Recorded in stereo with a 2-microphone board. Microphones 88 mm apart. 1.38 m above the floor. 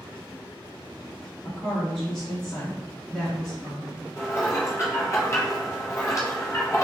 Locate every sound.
1.4 s a woman speaking: 5° left (ahead or behind), 1.0 m
4.2 s dishes clattering: 35° left (ahead or behind), 0.8 m